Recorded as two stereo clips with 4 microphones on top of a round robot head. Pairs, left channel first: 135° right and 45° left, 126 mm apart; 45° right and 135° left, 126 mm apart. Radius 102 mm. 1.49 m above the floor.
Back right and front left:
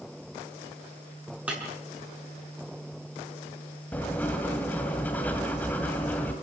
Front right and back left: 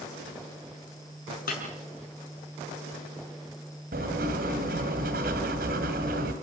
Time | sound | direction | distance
1.5 | breaking glass | 40° right | 5.5 m
3.9 | writing | 145° left | 2 m